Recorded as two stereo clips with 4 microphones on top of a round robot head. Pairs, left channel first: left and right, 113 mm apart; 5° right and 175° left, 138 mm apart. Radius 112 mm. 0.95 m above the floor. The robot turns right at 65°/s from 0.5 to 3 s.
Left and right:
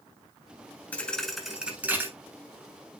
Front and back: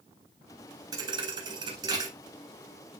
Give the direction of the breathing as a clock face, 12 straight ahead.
I don't hear breathing.